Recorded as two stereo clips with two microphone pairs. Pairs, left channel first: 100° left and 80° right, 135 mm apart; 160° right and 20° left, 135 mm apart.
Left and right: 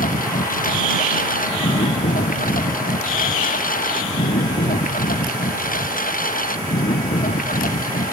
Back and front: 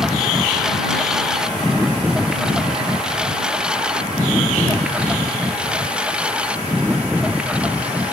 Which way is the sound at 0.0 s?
105° left.